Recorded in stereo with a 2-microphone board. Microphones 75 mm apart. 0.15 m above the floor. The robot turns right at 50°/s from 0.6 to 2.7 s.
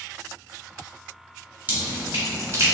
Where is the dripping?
30° right (ahead or behind), 1.8 m; by 2.8 s 35° right (ahead or behind), 1.8 m.